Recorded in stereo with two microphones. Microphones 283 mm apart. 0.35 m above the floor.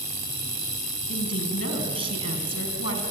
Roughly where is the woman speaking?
Left.